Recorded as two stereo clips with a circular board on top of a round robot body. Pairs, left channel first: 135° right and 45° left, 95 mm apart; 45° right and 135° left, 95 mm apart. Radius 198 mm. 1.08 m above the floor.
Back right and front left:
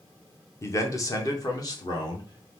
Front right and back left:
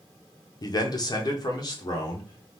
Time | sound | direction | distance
0.6 | a man speaking | 80° right | 1.0 m